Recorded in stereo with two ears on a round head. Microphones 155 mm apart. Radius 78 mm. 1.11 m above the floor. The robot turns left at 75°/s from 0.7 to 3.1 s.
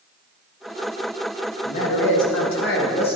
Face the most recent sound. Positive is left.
turn(degrees=30)